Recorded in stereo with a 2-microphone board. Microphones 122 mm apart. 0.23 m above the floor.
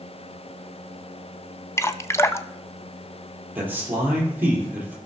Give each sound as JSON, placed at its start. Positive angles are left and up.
{"t": 1.8, "sound": "dripping", "side_deg": 20, "distance_m": 0.6}
{"t": 3.5, "sound": "a man speaking", "side_deg": -15, "distance_m": 5.0}